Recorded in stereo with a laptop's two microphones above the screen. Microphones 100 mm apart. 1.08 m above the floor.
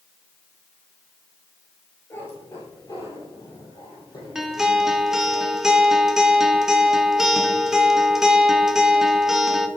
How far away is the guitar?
About 1.0 m.